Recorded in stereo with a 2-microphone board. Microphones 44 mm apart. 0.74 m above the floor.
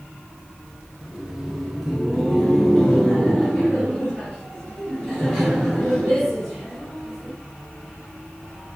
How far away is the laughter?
About 0.9 m.